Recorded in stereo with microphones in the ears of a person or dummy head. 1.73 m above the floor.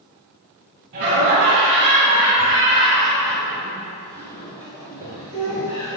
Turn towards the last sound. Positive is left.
turn(degrees=20)  # may be behind; listen again after turning